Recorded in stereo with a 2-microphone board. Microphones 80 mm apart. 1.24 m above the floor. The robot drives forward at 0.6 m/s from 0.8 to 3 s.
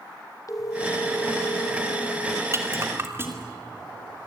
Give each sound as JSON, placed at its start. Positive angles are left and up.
{"t": 0.5, "sound": "a phone ringing", "side_deg": 45, "distance_m": 2.0}
{"t": 2.5, "sound": "a rattle", "side_deg": -35, "distance_m": 2.5}